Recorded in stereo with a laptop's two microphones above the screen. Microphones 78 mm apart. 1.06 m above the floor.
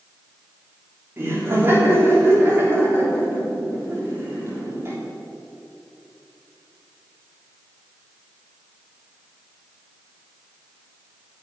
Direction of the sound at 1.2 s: 30° right (ahead or behind).